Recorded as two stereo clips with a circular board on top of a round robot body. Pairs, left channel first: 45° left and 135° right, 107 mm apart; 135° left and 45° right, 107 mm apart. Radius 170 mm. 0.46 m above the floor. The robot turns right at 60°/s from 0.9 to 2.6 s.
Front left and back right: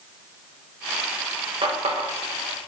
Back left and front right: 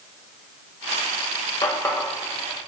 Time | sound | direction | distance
1.6 | a running tap | 175° right | 1.9 m